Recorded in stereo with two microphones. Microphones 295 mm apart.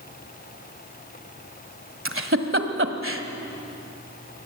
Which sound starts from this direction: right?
A giggle, at 2.0 s.